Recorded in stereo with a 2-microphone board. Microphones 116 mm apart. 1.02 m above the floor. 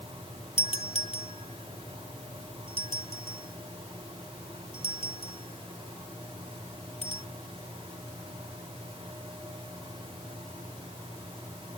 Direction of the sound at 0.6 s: 70° left (ahead or behind).